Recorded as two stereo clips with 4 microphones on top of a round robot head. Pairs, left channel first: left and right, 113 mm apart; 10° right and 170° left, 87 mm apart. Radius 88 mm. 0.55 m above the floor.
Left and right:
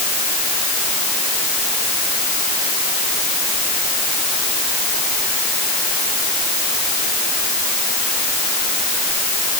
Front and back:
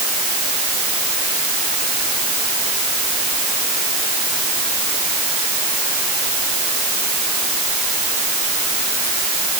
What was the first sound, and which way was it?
Only background noise.